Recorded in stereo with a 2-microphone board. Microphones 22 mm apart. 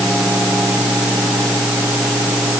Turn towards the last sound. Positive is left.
No sound to turn to.